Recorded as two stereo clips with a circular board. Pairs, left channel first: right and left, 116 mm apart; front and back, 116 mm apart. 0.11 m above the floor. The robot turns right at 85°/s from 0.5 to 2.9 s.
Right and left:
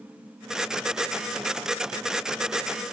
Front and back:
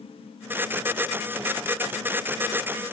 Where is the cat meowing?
I don't hear a cat meowing.